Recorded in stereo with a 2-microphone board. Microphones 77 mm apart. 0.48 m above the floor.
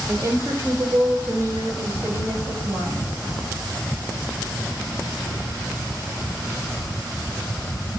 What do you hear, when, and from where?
0.1 s a woman speaking: 50° right (ahead or behind), 2.5 m; by 3.1 s 40° right (ahead or behind), 4 m